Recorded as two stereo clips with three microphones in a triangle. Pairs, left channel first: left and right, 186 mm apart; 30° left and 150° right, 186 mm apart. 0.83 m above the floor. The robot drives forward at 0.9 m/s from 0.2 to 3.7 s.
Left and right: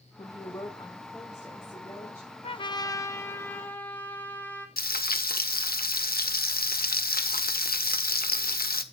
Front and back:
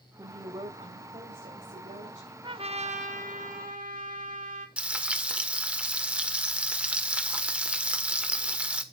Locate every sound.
0.2 s a woman speaking: 145° left, 1.3 m; by 2.3 s 170° left, 3 m
2.4 s a trumpet: 150° left, 0.6 m; by 4.7 s 170° left, 1.6 m
4.8 s frying: 125° left, 1.0 m